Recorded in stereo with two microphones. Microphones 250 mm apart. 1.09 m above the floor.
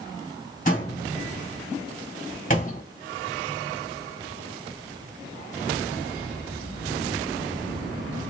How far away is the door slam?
About 2.0 m.